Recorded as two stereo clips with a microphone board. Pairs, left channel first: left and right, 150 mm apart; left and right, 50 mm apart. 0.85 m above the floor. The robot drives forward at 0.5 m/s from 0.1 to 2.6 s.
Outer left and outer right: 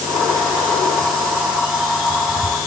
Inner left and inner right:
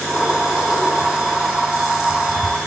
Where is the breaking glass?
I don't hear breaking glass.